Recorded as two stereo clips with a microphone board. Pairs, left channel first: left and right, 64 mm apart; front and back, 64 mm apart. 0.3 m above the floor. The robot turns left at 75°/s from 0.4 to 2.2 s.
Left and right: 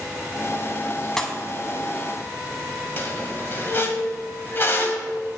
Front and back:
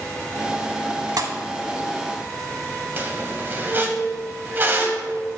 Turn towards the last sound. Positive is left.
turn(degrees=130)